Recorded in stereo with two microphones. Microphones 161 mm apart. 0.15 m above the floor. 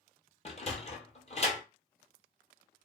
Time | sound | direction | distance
0.5 | a sliding door | 40° left (ahead or behind) | 0.7 m